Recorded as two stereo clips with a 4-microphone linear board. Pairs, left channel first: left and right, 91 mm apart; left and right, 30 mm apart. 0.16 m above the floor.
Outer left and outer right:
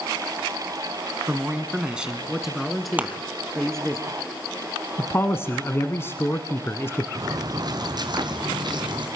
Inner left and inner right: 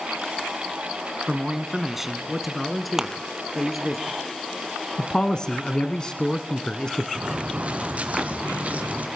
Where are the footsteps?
45° right (ahead or behind), 1.8 m; by 9.1 s 55° right (ahead or behind), 3 m.